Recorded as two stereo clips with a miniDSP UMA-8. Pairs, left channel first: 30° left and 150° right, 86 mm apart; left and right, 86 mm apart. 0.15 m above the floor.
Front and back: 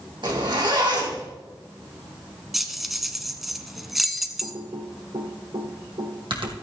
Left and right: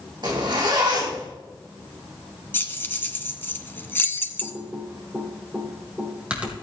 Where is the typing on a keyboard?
165° right, 2.5 m.